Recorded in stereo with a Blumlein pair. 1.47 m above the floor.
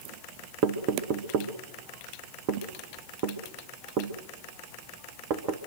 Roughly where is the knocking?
Ahead right.